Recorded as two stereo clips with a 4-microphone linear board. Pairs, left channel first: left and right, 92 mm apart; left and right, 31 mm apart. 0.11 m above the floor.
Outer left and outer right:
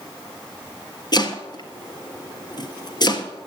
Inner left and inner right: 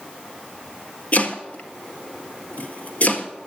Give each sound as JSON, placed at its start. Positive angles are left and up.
{"t": 1.1, "sound": "chopping", "side_deg": 50, "distance_m": 1.5}